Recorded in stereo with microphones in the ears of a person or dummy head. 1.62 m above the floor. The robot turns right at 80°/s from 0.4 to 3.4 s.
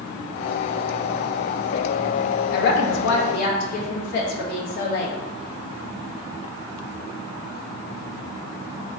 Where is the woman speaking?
50° left, 0.8 m; by 5.2 s 120° left, 0.8 m.